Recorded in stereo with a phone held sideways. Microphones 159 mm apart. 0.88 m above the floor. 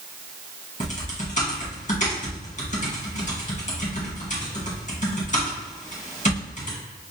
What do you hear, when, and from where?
0.8 s typing on a keyboard: 55° left (ahead or behind), 1.2 m